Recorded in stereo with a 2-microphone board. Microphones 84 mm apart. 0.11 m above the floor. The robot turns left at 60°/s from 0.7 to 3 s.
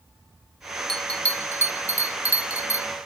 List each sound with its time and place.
0.9 s a bell: 5° left (ahead or behind), 0.5 m; by 2.9 s 30° left (ahead or behind), 0.5 m